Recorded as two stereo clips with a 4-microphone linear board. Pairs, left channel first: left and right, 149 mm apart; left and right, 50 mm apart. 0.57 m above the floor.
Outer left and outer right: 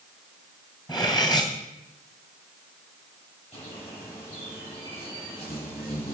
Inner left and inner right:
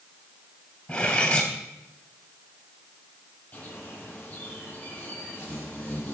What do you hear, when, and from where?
0.9 s cutlery clinking: 25° left (ahead or behind), 2.5 m
3.5 s a bird: 45° left (ahead or behind), 7 m